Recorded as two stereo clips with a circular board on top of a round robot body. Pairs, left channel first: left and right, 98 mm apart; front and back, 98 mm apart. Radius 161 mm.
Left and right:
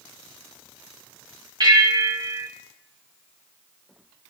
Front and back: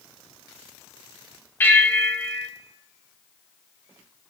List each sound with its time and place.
1.6 s a bell: 65° right, 1.7 m